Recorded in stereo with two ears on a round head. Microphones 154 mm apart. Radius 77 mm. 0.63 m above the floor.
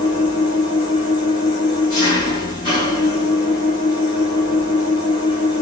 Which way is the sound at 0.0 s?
25° left (ahead or behind).